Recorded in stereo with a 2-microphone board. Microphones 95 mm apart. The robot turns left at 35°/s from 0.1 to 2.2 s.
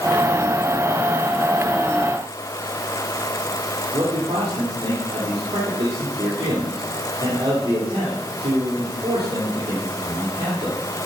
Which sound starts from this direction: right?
A man speaking, at 3.9 s.